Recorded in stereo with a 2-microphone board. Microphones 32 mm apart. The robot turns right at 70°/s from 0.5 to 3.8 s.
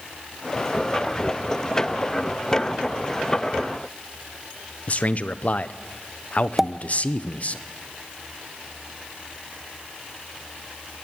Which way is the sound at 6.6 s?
10° right (ahead or behind).